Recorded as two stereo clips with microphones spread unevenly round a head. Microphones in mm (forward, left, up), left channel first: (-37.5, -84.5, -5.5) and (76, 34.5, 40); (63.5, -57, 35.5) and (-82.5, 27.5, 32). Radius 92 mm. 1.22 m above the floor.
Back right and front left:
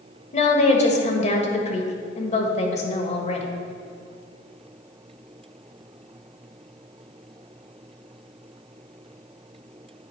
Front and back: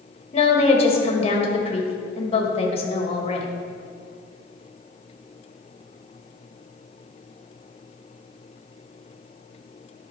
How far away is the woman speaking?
About 1.5 m.